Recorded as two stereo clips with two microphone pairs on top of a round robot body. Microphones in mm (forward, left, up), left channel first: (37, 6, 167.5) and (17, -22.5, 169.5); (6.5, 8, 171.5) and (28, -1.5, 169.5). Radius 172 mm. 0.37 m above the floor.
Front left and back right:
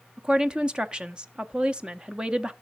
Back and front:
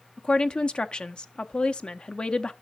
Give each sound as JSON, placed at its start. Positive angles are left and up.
{"t": 0.2, "sound": "a woman speaking", "azimuth_deg": 180, "distance_m": 0.9}